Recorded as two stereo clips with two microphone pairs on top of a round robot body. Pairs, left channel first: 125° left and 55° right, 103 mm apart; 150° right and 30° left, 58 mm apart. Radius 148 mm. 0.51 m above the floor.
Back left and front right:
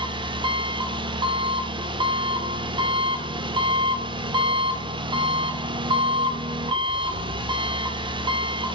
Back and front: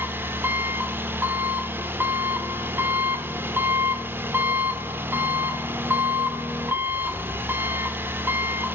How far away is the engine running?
About 1.9 m.